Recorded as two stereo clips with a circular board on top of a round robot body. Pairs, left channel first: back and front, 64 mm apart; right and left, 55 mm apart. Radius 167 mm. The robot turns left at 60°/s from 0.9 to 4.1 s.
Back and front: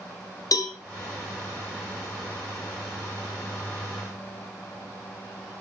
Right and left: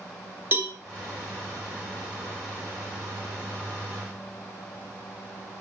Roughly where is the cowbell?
Behind left.